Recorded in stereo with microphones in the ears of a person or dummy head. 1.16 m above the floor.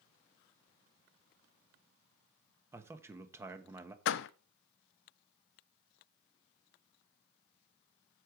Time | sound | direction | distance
2.7 | a man speaking | 5° right (ahead or behind) | 1.2 m
4.0 | a door slam | 60° left (ahead or behind) | 0.5 m